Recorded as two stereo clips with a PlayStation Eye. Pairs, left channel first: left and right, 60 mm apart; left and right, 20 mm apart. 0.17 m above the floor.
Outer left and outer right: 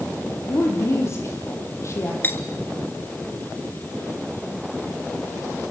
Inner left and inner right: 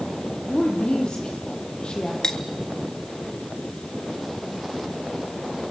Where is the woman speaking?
50° left (ahead or behind), 7 m.